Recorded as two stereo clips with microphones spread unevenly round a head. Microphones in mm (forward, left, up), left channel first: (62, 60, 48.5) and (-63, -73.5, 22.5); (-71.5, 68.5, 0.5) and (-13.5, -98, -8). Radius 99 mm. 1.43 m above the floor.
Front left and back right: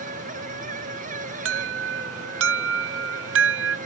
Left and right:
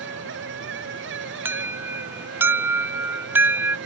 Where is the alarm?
150° right.